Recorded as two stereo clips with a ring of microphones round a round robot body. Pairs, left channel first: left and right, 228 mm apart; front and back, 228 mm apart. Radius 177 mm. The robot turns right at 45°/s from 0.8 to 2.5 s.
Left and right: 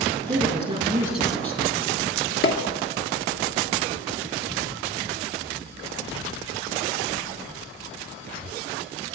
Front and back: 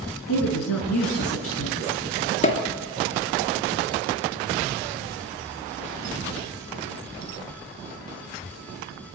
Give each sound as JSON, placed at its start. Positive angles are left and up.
{"t": 0.3, "sound": "a woman speaking", "azimuth_deg": -20, "distance_m": 6.5}
{"t": 2.4, "sound": "a pop", "azimuth_deg": 60, "distance_m": 3.0}